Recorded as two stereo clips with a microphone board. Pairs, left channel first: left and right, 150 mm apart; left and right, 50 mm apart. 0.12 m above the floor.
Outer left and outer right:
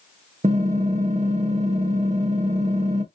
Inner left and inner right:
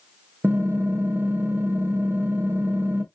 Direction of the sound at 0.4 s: 50° right (ahead or behind).